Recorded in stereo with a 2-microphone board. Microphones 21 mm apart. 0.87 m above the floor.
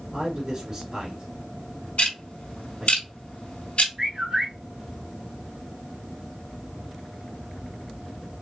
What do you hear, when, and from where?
0.1 s a man speaking: 15° right (ahead or behind), 2.5 m
2.0 s ticking: 65° left (ahead or behind), 2 m
4.0 s a bird: 25° right (ahead or behind), 1.9 m